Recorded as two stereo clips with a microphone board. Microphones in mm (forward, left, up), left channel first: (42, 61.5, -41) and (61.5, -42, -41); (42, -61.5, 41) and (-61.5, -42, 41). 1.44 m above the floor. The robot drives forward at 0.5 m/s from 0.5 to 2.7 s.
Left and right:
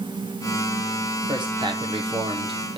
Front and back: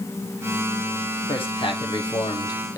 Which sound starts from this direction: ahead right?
A man speaking, at 1.3 s.